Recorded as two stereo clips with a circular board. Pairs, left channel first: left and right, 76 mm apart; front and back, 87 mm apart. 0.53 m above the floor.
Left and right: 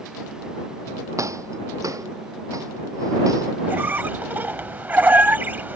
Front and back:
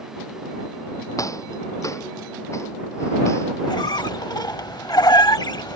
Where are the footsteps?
45° right; by 3.5 s 55° right.